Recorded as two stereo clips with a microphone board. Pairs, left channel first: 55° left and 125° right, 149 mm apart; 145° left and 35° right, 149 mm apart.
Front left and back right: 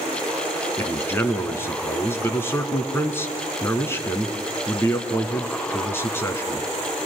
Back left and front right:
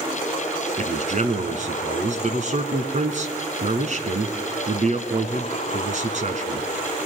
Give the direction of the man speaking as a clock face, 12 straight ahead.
1 o'clock.